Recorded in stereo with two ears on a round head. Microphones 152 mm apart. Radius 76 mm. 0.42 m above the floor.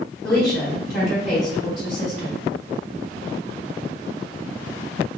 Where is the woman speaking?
Centre (ahead or behind), 1.6 m.